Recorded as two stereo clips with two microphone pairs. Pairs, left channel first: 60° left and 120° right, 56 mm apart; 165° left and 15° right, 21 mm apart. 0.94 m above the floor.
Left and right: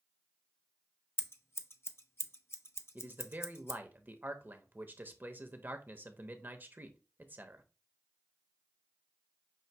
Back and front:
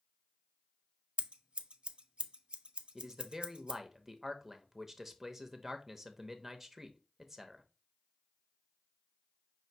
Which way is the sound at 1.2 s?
20° left.